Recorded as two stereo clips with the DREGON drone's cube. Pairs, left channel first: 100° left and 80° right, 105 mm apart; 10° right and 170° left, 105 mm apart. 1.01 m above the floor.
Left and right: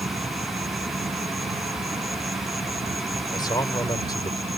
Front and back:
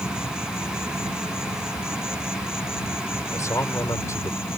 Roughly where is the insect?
Right.